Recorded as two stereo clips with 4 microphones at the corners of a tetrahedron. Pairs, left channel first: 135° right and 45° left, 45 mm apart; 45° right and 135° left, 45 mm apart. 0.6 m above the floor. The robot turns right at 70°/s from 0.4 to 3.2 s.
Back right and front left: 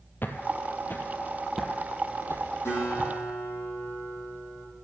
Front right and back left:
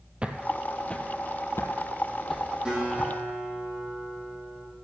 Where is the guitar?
155° right, 6 m; by 4.7 s 115° right, 6 m.